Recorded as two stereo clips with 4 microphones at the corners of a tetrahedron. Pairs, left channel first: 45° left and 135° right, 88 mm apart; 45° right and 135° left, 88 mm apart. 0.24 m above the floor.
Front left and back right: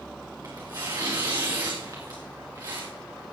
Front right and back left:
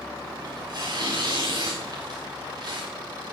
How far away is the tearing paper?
About 4.5 m.